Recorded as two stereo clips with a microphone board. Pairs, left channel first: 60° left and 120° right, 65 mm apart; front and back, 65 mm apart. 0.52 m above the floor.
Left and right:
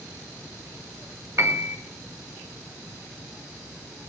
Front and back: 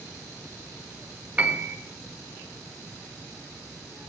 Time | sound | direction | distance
1.4 | a piano | 115° right | 1.4 m